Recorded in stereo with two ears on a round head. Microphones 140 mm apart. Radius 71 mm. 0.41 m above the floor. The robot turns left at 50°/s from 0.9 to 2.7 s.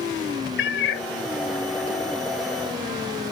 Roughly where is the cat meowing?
Left.